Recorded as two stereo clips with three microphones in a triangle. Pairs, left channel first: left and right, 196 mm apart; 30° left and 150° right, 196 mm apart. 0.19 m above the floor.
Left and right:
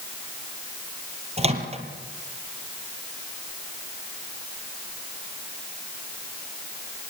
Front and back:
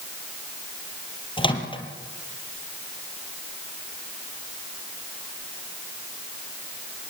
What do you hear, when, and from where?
1.4 s a microwave: 35° right, 4 m